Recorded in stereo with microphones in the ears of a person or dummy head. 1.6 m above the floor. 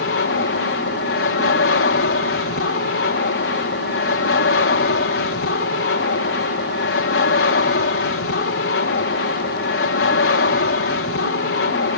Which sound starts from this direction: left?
An aircraft, at 0.0 s.